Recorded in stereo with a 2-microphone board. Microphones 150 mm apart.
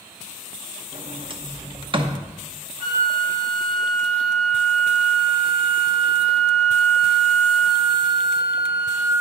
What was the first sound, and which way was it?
A sliding door, 40° right (ahead or behind).